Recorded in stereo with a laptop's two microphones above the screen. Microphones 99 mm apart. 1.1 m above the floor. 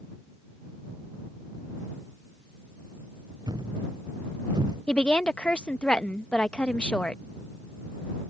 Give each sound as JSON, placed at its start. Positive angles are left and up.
{"t": 3.5, "sound": "a thud", "side_deg": -45}
{"t": 4.9, "sound": "a woman speaking", "side_deg": 10}